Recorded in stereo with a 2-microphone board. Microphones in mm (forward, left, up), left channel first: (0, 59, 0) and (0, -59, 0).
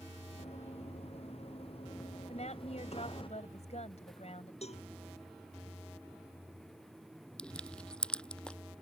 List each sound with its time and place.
0.4 s running footsteps: 60° left (ahead or behind); by 3.3 s 50° left (ahead or behind)
2.3 s a woman speaking: 70° left (ahead or behind)
4.6 s a cowbell: 65° left (ahead or behind)
7.4 s crushing: 10° left (ahead or behind)